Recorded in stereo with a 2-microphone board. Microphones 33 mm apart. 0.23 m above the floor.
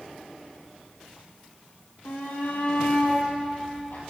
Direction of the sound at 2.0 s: 75° left (ahead or behind).